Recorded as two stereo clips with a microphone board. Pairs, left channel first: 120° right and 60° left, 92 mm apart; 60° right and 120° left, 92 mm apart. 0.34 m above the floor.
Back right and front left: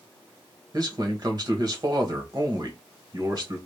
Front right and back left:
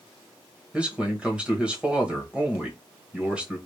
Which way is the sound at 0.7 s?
50° left.